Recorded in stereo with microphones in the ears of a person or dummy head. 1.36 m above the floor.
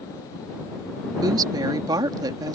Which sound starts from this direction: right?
A woman speaking, at 1.2 s.